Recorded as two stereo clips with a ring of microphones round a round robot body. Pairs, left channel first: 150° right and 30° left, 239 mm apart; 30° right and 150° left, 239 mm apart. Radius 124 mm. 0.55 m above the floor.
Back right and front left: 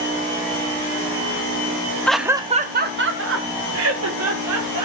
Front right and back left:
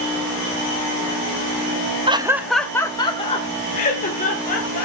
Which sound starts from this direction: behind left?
Laughter, at 2.1 s.